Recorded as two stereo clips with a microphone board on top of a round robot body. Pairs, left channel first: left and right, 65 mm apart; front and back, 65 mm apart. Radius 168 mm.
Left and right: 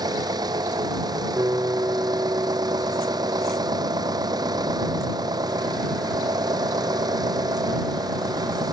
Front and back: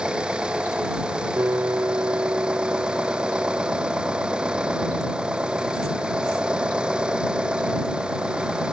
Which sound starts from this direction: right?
An engine running, at 0.0 s.